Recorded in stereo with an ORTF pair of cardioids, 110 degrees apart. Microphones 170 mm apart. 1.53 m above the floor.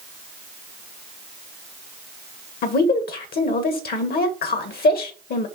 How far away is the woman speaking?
About 1.4 m.